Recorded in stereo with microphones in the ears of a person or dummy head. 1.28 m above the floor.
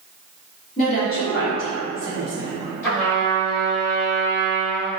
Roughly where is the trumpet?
Centre.